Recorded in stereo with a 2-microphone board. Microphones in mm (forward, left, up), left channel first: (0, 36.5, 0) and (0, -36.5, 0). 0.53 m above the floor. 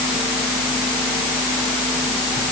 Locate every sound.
Only background noise.